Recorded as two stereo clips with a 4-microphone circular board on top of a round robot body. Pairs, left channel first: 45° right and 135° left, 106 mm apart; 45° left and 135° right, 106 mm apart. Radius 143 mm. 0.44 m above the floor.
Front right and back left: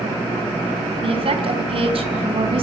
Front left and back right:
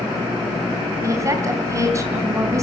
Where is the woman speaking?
165° left, 4.5 m.